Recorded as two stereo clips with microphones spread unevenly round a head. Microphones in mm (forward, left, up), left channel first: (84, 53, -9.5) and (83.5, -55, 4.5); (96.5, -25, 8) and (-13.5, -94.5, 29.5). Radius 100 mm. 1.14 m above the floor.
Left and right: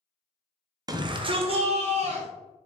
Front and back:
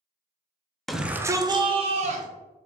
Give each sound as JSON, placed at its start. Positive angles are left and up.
{"t": 0.9, "sound": "a shout", "azimuth_deg": -45, "distance_m": 0.6}